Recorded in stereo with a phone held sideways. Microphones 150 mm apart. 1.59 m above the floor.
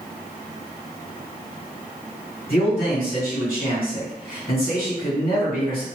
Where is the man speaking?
70° left (ahead or behind), 1.6 m.